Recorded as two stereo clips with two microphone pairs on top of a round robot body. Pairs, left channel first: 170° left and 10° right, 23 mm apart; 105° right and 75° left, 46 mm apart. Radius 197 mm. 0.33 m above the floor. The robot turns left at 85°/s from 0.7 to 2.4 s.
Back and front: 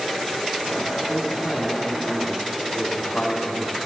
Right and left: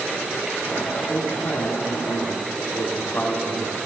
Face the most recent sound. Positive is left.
turn(degrees=-140)